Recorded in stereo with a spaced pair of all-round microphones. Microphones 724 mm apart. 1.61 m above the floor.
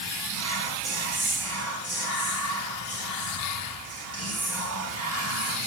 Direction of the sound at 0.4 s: 20° right (ahead or behind).